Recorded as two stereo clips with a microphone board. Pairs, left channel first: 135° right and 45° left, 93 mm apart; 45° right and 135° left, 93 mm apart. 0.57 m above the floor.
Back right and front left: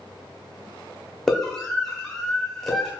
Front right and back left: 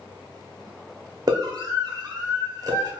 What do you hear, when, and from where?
1.3 s a scream: 140° left, 1.4 m